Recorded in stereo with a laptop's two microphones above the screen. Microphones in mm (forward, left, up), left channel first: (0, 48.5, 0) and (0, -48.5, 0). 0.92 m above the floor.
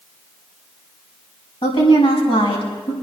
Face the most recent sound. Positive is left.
turn(degrees=85)